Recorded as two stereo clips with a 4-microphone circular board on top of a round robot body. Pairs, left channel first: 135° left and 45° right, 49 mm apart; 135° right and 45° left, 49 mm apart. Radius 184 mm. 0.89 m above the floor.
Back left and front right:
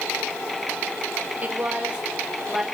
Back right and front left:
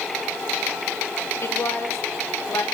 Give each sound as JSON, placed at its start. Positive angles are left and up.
{"t": 1.4, "sound": "a woman speaking", "azimuth_deg": -105, "distance_m": 5.0}